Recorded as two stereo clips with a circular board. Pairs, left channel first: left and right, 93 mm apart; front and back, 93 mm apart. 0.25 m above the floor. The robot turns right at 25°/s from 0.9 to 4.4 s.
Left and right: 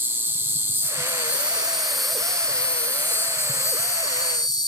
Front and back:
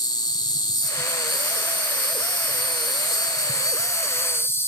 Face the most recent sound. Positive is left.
turn(degrees=60)